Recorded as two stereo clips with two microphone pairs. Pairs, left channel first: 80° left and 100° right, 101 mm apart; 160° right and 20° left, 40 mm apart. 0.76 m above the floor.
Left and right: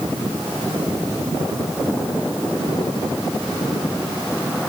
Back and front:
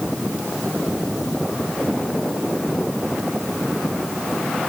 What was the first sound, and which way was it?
Only background noise.